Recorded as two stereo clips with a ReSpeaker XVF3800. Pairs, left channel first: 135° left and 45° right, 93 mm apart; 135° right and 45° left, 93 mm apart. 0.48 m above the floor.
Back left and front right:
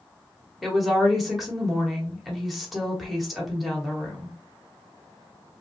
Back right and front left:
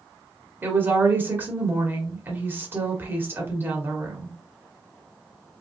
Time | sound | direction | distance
0.6 | a woman speaking | 40° left | 1.1 m